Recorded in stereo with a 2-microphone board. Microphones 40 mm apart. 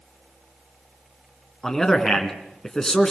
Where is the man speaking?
15° left (ahead or behind), 3 m.